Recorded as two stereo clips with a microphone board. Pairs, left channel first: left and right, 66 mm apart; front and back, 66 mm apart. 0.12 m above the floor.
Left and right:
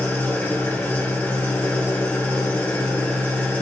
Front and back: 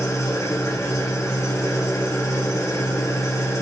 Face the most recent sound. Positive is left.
turn(degrees=30)